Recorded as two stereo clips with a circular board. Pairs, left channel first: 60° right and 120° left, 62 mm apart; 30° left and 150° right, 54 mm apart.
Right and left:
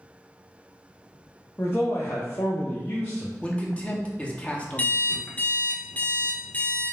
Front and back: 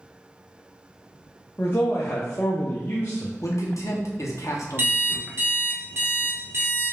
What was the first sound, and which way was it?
A man speaking, 15° right.